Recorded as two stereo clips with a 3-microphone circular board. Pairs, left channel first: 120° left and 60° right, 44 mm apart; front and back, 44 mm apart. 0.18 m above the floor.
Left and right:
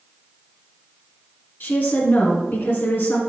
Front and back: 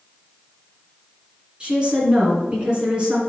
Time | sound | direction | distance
1.6 | a woman speaking | 120° left | 2.0 m